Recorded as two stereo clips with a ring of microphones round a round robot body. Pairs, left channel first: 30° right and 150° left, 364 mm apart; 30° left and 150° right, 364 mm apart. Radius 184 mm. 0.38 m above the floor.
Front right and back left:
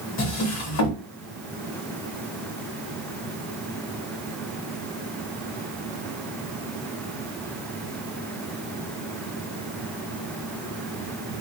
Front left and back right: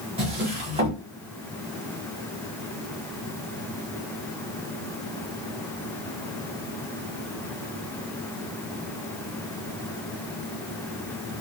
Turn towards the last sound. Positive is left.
turn(degrees=-75)